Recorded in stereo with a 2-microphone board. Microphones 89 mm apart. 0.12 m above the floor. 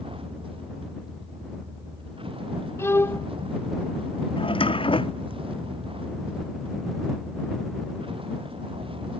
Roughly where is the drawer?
Left.